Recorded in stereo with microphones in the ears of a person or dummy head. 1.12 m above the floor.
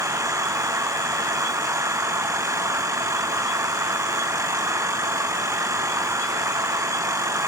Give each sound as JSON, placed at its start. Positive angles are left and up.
{"t": 0.0, "sound": "an engine running", "side_deg": -25}